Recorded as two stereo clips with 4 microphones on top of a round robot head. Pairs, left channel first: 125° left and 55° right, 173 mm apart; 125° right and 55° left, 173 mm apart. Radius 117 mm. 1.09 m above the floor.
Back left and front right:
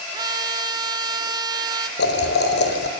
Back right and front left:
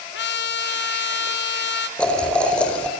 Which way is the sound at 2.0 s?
150° left.